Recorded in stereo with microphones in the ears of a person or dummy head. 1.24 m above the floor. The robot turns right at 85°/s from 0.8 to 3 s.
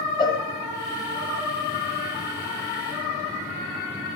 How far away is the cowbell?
About 2 m.